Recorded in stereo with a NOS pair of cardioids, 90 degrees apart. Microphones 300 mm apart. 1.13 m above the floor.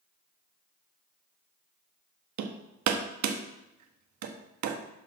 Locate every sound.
2.4 s hammering: 65° right, 1.0 m